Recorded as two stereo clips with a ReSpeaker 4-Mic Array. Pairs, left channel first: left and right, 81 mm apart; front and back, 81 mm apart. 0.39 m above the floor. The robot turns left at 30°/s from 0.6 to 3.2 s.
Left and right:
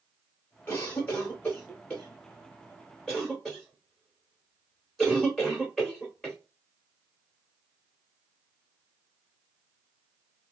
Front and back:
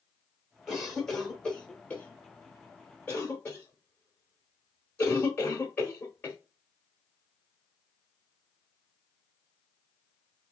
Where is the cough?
80° left, 0.8 m; by 6.4 s 5° left, 0.8 m.